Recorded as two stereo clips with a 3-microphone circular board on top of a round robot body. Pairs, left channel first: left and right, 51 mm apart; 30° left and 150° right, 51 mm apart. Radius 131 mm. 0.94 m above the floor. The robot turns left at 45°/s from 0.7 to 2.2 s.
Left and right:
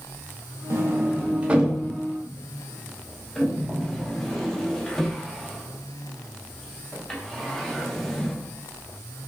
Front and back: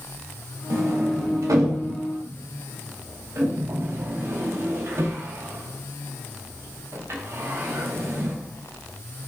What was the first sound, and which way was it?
A sliding door, 120° right.